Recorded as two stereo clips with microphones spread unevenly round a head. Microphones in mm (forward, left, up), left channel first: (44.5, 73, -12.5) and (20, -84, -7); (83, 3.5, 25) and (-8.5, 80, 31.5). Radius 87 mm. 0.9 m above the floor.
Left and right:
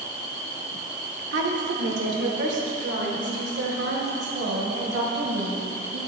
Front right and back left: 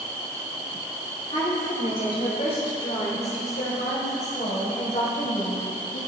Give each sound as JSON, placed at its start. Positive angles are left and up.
{"t": 1.3, "sound": "a woman speaking", "azimuth_deg": -100, "distance_m": 2.5}